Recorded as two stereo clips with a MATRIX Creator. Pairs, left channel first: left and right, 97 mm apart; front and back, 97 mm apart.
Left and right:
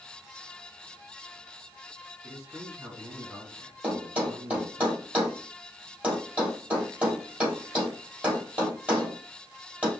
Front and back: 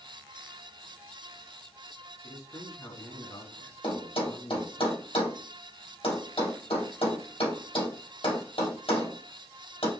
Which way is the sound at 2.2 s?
40° right.